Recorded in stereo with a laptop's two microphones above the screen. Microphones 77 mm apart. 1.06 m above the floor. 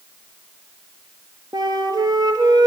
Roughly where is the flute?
Right.